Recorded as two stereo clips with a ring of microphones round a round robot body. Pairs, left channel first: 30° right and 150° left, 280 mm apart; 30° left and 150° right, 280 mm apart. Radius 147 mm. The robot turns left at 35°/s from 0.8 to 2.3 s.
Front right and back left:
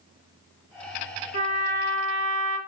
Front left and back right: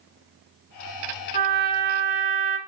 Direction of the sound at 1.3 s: 140° right.